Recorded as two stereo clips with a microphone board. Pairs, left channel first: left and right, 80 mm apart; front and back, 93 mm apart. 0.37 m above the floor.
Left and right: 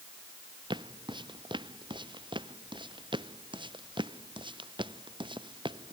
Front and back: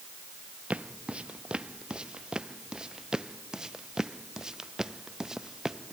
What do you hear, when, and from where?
0.7 s footsteps: 105° right; by 5.9 s 95° right